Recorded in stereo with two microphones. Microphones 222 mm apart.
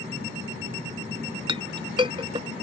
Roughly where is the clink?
Right.